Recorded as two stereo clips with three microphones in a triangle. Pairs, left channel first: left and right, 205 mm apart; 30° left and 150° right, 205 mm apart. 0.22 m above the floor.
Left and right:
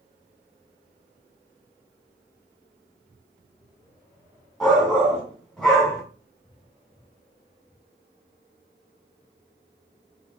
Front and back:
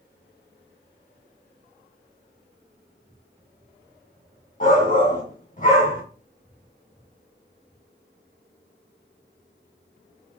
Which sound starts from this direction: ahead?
A shout, at 4.6 s.